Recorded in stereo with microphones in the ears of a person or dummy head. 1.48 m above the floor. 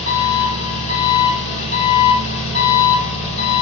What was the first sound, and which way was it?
An engine running, 65° left (ahead or behind).